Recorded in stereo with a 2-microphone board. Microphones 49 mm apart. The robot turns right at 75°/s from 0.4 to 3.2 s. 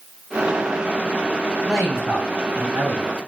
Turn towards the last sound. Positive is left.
turn(degrees=-75)